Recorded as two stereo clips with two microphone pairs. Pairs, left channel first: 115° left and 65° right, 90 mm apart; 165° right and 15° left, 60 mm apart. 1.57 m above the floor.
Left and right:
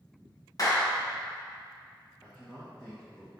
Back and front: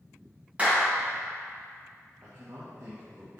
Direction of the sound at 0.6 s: 75° left.